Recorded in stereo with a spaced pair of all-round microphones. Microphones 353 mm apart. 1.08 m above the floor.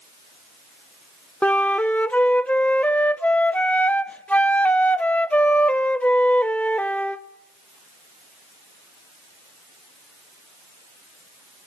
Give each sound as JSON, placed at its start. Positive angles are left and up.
{"t": 1.4, "sound": "a flute", "side_deg": 5, "distance_m": 0.6}